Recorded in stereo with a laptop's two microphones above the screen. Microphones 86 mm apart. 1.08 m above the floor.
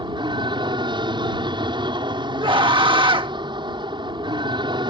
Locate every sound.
0.0 s an aircraft: 65° right (ahead or behind)
2.4 s a scream: 70° right (ahead or behind)